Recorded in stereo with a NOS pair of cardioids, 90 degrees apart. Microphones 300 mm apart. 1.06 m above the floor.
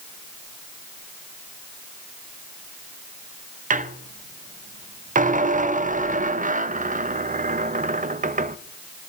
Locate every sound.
3.7 s a squeak: 25° right, 0.5 m